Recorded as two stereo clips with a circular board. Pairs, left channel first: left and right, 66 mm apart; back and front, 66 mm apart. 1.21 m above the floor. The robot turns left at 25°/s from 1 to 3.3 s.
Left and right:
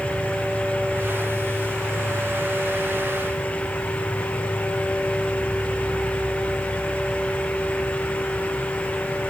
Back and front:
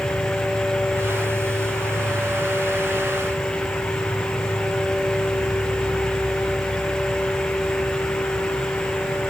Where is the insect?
150° right; by 9.3 s 155° left.